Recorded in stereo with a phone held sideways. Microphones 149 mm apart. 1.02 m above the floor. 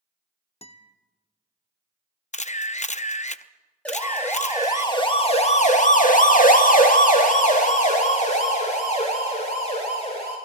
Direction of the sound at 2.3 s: 50° left (ahead or behind).